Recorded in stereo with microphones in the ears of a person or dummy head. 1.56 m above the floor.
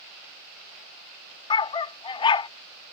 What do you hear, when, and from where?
1.5 s a dog barking: 25° left (ahead or behind)